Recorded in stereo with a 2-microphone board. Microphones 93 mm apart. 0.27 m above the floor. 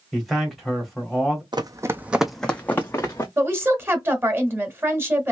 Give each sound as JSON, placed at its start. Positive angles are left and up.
{"t": 0.1, "sound": "a man speaking", "side_deg": 0, "distance_m": 1.3}
{"t": 1.5, "sound": "running footsteps", "side_deg": -55, "distance_m": 0.6}
{"t": 3.4, "sound": "a woman speaking", "side_deg": -25, "distance_m": 1.2}